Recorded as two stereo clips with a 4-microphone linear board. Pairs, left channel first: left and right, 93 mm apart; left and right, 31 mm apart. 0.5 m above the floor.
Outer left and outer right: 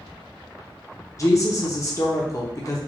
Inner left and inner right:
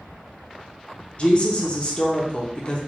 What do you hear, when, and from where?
1.2 s a woman speaking: 35° left (ahead or behind), 0.8 m